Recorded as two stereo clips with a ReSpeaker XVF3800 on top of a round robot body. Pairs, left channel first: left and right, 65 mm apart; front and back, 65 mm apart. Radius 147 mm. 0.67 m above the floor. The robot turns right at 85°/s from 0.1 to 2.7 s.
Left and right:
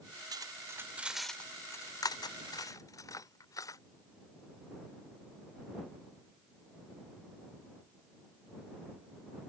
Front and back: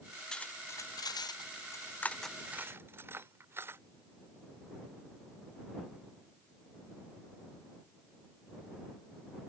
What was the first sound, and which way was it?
Cutlery clinking, 80° right.